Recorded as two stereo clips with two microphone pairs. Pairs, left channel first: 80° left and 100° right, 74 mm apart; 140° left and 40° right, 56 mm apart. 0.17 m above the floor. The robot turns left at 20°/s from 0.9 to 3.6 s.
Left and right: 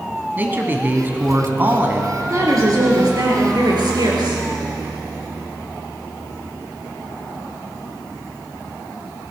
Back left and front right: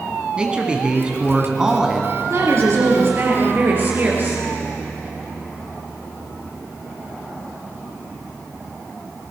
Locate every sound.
0.4 s a man speaking: 90° right, 1.4 m; by 2.2 s 115° right, 1.4 m
2.3 s a woman speaking: 60° right, 3.5 m; by 4.4 s 90° right, 3.5 m